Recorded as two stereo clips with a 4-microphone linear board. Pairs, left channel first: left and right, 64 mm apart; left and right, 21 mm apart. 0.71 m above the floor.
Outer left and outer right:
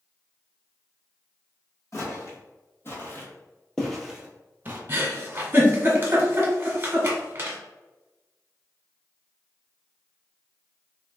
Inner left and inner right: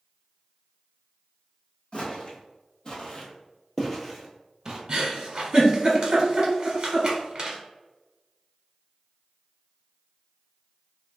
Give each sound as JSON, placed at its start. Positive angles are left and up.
{"t": 1.9, "sound": "footsteps", "side_deg": 55, "distance_m": 1.6}
{"t": 4.9, "sound": "a giggle", "side_deg": -35, "distance_m": 1.1}